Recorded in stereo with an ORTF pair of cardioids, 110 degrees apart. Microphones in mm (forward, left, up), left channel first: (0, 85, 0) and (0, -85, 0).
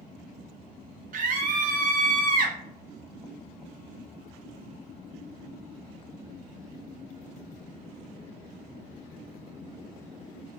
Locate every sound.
1.1 s a scream: 55° right, 0.7 m